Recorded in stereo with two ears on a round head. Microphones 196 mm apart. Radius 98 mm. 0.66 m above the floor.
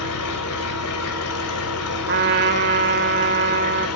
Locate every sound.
0.0 s an engine running: 75° left (ahead or behind), 2 m
2.1 s a trumpet: 50° right (ahead or behind), 2.0 m